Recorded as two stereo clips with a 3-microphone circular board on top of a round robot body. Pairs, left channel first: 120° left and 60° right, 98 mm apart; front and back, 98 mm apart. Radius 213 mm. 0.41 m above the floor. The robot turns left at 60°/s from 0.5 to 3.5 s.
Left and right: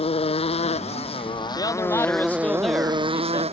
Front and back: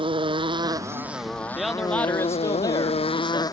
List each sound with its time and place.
0.0 s a motorcycle: 145° left; by 3.5 s 55° right
1.6 s a man speaking: 95° left; by 3.4 s 15° right